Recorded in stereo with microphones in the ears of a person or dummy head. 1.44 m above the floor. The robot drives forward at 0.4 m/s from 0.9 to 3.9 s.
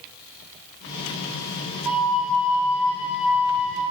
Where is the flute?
10° right (ahead or behind), 2 m; by 3.8 s 5° right (ahead or behind), 3 m.